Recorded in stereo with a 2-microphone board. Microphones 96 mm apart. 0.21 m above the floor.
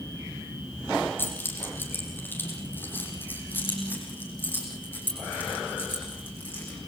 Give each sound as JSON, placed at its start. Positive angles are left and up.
{"t": 1.2, "sound": "keys jangling", "side_deg": 20, "distance_m": 4.0}